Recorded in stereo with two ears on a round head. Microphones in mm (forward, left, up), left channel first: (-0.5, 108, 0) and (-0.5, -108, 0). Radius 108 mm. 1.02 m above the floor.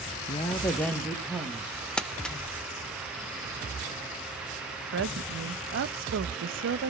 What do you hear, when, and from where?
0.3 s a woman speaking: 25° left (ahead or behind), 0.8 m; by 1.9 s 10° right (ahead or behind), 2 m
2.0 s crumpling: 5° left (ahead or behind), 0.5 m
4.9 s a woman speaking: 55° right (ahead or behind), 0.8 m